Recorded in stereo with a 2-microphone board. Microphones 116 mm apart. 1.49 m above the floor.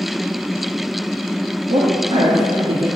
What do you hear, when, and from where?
1.7 s a woman speaking: 75° right (ahead or behind), 2 m; by 2.9 s 70° right (ahead or behind), 3 m